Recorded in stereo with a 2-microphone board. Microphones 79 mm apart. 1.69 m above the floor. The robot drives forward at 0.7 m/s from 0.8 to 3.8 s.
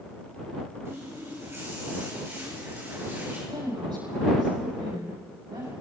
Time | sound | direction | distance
0.8 | a running tap | 40° right (ahead or behind) | 5.5 m
3.5 | a woman speaking | 80° right | 8.5 m